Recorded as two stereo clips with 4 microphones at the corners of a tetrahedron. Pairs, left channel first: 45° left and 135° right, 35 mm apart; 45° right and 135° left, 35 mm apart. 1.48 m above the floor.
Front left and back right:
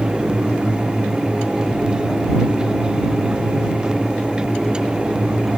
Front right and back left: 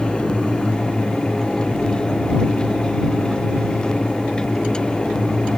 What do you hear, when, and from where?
Only background noise.